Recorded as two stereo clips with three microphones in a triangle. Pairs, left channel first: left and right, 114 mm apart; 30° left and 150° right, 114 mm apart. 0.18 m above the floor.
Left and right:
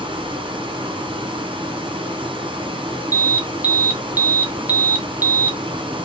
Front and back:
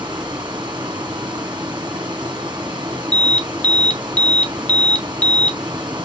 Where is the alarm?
35° right, 0.9 m.